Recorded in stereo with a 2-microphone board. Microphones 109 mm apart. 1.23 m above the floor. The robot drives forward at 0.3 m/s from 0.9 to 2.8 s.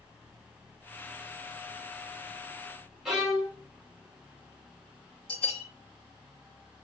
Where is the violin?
5° right (ahead or behind), 1.2 m.